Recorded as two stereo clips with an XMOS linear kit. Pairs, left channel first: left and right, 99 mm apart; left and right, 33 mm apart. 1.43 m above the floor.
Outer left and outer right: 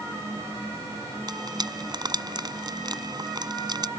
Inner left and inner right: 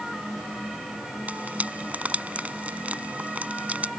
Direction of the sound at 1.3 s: 45° right (ahead or behind).